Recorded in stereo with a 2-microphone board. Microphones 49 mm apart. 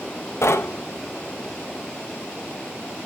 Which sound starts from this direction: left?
Knocking, at 0.4 s.